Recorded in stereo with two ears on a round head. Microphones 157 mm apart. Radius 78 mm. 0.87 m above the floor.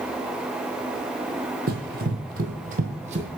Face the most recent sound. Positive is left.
turn(degrees=-40)  # may be behind; listen again after turning